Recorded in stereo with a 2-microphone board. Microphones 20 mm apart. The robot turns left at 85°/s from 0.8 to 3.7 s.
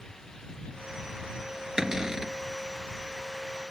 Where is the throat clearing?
I don't hear throat clearing.